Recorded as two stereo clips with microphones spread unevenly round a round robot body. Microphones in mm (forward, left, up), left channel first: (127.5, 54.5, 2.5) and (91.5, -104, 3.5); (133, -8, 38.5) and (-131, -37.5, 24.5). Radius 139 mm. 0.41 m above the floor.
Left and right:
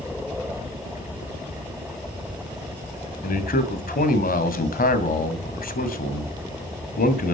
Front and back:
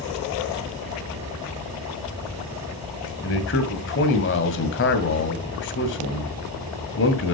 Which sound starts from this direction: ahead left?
A man speaking, at 3.2 s.